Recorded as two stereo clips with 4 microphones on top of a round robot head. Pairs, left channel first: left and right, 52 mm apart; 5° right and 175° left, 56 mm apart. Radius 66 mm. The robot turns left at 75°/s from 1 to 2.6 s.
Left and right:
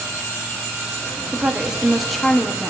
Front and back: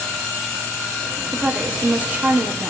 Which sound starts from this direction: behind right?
A woman speaking, at 1.3 s.